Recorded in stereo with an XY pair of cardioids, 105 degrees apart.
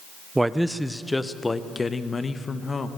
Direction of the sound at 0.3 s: 10° right.